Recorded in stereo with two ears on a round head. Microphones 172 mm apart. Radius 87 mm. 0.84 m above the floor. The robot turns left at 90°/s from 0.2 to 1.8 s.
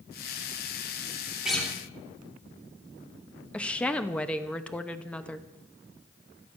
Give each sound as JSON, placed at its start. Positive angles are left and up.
{"t": 1.4, "sound": "a guitar", "side_deg": -5, "distance_m": 3.0}
{"t": 3.5, "sound": "a woman speaking", "side_deg": 5, "distance_m": 0.9}